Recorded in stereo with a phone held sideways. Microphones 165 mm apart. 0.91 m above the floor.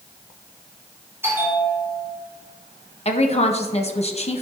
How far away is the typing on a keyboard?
No typing on a keyboard in this recording.